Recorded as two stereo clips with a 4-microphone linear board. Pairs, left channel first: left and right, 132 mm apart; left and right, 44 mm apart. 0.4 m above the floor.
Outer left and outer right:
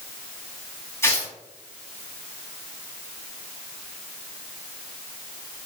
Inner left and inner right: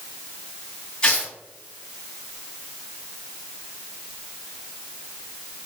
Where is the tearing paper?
20° left (ahead or behind), 1.7 m.